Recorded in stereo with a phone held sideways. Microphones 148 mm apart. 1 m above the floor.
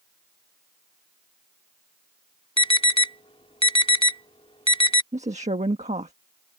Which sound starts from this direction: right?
A woman speaking, at 5.1 s.